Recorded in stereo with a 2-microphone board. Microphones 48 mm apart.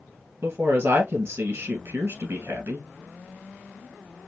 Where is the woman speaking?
55° right (ahead or behind), 2 m.